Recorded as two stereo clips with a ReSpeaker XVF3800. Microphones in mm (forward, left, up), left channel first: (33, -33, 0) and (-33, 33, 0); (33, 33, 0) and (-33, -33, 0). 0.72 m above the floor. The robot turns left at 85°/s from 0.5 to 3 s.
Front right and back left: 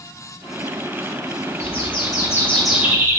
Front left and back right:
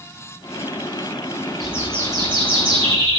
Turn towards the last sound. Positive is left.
turn(degrees=-165)